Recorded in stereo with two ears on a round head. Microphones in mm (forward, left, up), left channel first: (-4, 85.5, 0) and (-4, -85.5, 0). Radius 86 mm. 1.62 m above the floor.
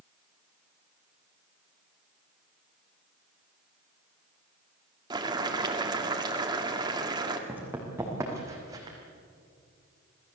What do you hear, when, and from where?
5.1 s boiling: 20° right (ahead or behind), 2.5 m
7.5 s running footsteps: 10° right (ahead or behind), 4.5 m; by 9.0 s 20° right (ahead or behind), 4.5 m